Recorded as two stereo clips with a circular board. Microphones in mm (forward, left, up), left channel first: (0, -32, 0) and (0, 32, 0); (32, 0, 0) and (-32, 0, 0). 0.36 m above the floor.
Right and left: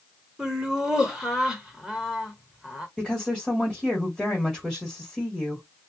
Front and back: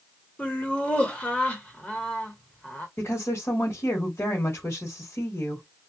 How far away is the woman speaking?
About 1.3 m.